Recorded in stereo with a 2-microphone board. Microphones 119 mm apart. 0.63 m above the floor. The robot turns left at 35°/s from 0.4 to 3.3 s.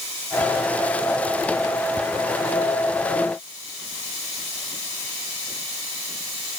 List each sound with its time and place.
Only background noise.